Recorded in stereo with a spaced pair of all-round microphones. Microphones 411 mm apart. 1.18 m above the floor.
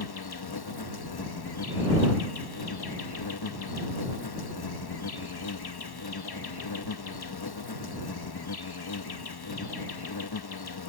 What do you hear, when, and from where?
0.0 s an insect: 65° left (ahead or behind)